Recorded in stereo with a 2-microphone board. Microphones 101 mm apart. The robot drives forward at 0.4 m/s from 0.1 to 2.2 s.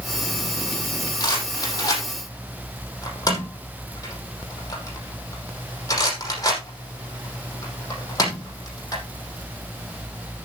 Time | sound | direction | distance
1.2 | a rattle | 40° left (ahead or behind) | 5.5 m